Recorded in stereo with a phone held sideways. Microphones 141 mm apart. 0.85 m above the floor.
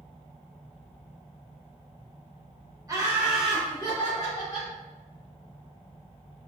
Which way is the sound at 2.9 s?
25° right (ahead or behind).